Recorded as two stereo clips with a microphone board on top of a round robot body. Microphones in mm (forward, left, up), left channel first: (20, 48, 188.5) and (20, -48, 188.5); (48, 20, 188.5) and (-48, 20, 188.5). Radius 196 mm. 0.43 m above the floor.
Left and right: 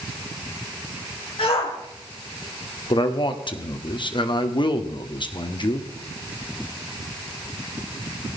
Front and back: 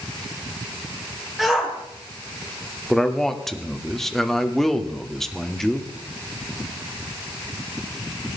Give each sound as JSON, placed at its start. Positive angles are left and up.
{"t": 1.4, "sound": "a shout", "azimuth_deg": 90, "distance_m": 3.0}
{"t": 2.9, "sound": "a man speaking", "azimuth_deg": 85, "distance_m": 1.9}